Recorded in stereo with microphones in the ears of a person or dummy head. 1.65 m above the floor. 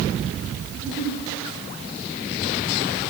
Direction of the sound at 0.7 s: 70° right (ahead or behind).